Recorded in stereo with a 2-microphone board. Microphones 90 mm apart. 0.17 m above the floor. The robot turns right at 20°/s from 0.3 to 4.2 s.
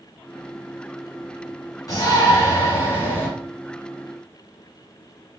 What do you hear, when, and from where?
1.9 s a shout: 40° left (ahead or behind), 1.7 m; by 3.3 s 20° left (ahead or behind), 1.7 m